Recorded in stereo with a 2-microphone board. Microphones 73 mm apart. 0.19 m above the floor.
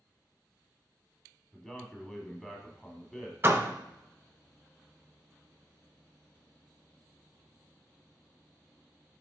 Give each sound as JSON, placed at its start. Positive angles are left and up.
{"t": 1.5, "sound": "a man speaking", "side_deg": 10, "distance_m": 1.1}
{"t": 3.4, "sound": "a door slam", "side_deg": -30, "distance_m": 0.9}